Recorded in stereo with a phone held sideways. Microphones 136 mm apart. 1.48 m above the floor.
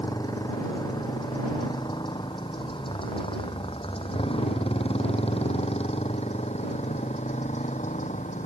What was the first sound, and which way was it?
A motorcycle, 30° left (ahead or behind).